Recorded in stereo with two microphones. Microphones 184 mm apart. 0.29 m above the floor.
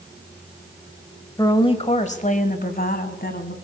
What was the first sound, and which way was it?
A woman speaking, 20° left (ahead or behind).